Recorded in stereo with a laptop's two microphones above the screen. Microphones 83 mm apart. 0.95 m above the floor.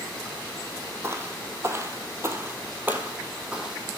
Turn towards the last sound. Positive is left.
turn(degrees=-5)  # may be behind; listen again after turning